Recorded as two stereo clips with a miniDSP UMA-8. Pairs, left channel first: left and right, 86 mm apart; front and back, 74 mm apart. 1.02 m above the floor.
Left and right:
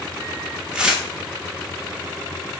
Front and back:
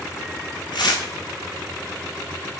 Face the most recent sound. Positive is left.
turn(degrees=-10)